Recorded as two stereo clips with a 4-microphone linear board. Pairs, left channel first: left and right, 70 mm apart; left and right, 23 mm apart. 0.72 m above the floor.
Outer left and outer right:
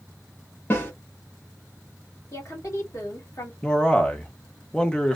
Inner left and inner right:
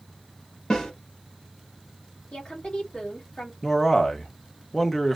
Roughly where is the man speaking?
Centre.